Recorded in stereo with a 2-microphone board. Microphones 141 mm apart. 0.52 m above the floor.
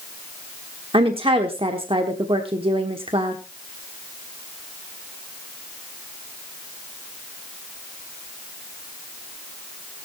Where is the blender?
I don't hear a blender.